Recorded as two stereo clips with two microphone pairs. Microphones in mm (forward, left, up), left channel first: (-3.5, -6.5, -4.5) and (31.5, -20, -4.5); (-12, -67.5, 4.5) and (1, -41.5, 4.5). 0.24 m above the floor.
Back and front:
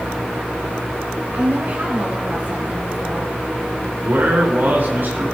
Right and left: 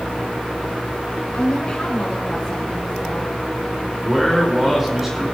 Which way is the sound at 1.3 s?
55° right.